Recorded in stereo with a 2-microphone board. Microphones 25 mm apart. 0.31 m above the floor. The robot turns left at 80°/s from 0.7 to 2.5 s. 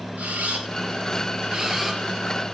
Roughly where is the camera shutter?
Right.